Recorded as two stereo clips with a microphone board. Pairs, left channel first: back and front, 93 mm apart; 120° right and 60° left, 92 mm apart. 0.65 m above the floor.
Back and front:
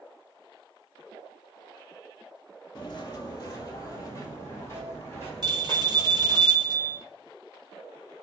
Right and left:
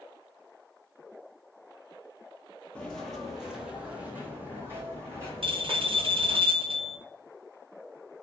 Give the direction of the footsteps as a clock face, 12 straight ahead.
6 o'clock.